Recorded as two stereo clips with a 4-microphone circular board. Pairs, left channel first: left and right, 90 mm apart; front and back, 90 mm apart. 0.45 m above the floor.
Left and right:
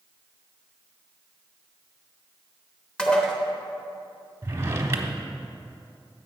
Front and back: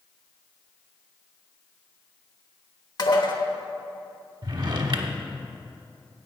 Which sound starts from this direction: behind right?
A drawer, at 4.4 s.